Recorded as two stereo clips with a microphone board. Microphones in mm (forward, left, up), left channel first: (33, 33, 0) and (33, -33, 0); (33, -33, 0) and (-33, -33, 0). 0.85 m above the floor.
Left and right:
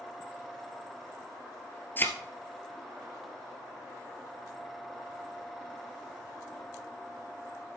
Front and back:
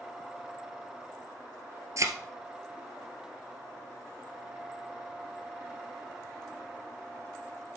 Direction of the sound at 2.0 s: 150° left.